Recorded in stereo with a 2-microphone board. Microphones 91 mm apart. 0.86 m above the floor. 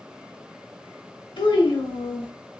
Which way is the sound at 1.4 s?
70° left (ahead or behind).